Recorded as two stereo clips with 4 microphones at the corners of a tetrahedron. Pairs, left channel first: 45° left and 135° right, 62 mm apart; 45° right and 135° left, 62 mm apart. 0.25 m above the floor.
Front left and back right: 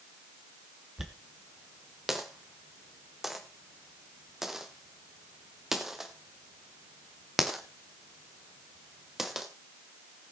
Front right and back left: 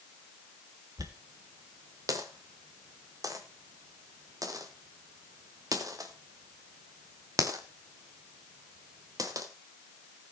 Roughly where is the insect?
I don't hear an insect.